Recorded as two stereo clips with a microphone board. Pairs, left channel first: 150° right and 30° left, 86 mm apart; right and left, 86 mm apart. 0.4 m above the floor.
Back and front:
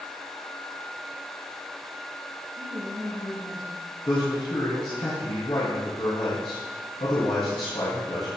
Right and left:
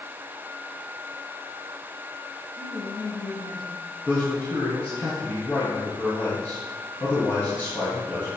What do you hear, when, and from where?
2.6 s a woman speaking: 60° right, 4.5 m
4.1 s a man speaking: 155° right, 5 m